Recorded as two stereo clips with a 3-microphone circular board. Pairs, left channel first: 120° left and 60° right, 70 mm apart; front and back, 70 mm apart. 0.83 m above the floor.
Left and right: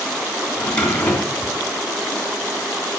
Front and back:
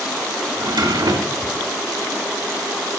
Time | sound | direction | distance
0.6 | a drawer | 165° right | 2.5 m